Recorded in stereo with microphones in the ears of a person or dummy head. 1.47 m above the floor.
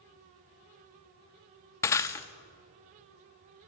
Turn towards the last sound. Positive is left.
turn(degrees=15)  # may be behind; listen again after turning